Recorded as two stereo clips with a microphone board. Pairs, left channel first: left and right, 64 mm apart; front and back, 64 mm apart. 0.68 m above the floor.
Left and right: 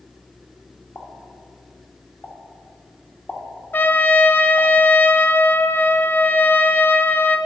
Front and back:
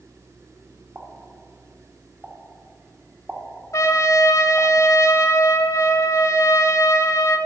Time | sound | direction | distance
0.9 | a pop | 125° left | 1.4 m
3.7 | a trumpet | 30° left | 0.6 m